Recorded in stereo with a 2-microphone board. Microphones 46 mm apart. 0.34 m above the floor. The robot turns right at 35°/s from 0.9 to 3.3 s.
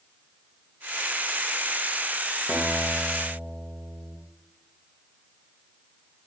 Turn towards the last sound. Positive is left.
turn(degrees=35)  # may be behind; listen again after turning